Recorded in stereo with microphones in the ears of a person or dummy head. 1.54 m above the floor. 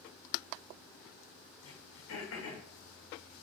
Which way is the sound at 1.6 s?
70° left (ahead or behind).